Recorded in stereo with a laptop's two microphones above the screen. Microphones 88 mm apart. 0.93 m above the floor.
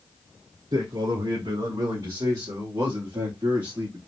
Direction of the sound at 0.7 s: 65° right (ahead or behind).